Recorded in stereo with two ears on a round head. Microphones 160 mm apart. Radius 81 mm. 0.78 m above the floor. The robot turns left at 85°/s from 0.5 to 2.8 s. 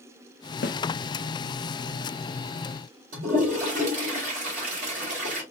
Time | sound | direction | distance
0.6 | a snare drum | 60° left (ahead or behind) | 0.5 m
3.1 | a toilet flushing | 45° right (ahead or behind) | 2.5 m